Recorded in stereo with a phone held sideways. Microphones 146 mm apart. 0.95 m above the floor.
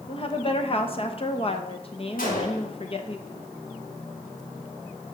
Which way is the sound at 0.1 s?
40° left (ahead or behind).